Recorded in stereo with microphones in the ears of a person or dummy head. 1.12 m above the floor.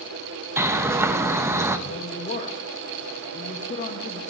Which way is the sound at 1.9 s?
40° left (ahead or behind).